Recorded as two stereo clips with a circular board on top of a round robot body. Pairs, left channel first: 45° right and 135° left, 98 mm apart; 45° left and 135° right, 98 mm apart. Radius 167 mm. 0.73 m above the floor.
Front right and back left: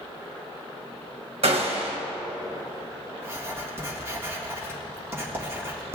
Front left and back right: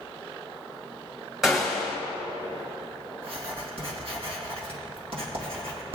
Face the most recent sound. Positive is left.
turn(degrees=-160)